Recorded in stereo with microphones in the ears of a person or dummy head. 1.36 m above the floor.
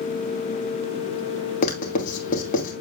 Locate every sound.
1.6 s writing: 45° left (ahead or behind), 2.5 m